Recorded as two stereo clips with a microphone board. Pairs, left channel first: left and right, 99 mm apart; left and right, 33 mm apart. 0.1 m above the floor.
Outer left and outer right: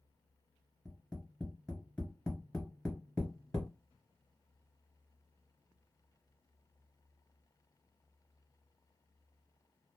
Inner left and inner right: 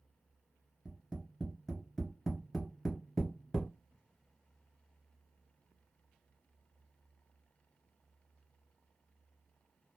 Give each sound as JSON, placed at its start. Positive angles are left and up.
{"t": 0.8, "sound": "tapping", "side_deg": 10, "distance_m": 1.8}